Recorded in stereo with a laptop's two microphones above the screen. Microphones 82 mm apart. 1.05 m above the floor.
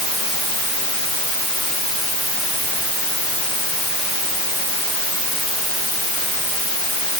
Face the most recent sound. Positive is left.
No sound to turn to.